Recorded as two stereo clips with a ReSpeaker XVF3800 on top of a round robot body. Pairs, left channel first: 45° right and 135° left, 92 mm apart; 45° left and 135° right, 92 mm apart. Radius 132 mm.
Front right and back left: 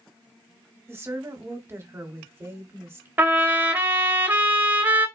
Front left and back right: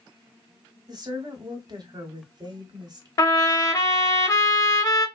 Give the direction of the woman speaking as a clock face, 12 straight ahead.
6 o'clock.